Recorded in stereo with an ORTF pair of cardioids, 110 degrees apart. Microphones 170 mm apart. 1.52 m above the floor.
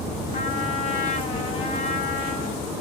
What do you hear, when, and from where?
0.3 s a trumpet: 40° left, 1.1 m